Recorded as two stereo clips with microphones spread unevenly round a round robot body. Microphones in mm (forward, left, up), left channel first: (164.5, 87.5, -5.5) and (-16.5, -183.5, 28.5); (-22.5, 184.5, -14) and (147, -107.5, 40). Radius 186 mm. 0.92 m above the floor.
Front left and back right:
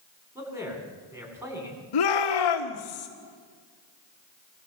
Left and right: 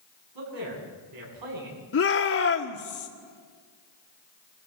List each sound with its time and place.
0.3 s a man speaking: 40° right, 9.5 m
1.9 s a shout: 70° left, 1.6 m